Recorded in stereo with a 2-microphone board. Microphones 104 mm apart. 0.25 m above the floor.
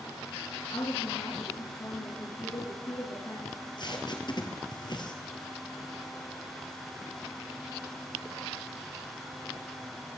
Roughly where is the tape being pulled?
Left.